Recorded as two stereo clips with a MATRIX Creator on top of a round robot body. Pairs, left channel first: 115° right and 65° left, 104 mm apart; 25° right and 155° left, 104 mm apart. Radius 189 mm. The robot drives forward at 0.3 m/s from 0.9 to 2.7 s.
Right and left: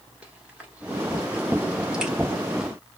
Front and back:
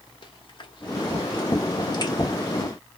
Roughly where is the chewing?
Ahead.